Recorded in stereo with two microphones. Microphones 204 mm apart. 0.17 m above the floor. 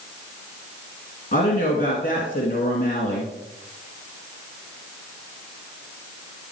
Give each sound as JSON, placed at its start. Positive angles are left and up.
{"t": 1.3, "sound": "a woman speaking", "side_deg": 45, "distance_m": 2.0}